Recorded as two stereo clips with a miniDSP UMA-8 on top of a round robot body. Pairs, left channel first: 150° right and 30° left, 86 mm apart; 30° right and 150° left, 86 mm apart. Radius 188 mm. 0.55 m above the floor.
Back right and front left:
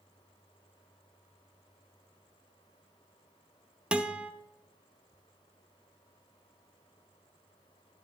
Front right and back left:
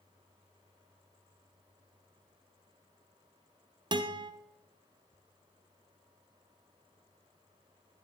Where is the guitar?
110° left, 0.7 m.